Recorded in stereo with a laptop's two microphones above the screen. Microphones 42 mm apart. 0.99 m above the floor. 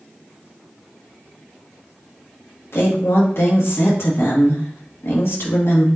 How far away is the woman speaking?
About 1.5 m.